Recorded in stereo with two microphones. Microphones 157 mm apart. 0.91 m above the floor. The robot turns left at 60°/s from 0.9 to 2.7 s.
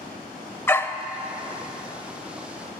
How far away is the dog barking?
About 0.7 m.